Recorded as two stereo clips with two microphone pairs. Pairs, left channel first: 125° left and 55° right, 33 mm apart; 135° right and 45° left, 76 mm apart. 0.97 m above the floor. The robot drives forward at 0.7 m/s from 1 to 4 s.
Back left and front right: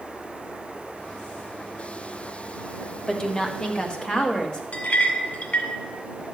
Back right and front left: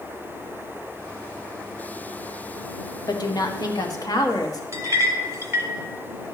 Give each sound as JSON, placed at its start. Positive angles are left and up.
{"t": 3.1, "sound": "a woman speaking", "azimuth_deg": -160, "distance_m": 1.1}
{"t": 4.7, "sound": "a clink", "azimuth_deg": 95, "distance_m": 1.6}